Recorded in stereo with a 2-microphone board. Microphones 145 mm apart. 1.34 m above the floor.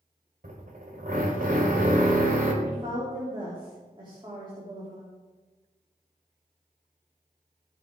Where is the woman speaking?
30° right (ahead or behind), 3.5 m.